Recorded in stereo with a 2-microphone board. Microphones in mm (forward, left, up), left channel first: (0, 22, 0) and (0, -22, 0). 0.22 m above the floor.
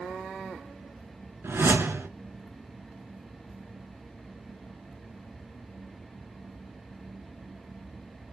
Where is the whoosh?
80° right, 0.7 m.